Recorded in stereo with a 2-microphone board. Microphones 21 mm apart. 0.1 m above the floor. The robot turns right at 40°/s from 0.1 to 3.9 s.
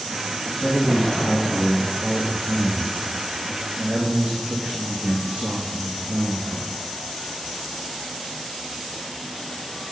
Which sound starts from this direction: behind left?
A man speaking, at 0.6 s.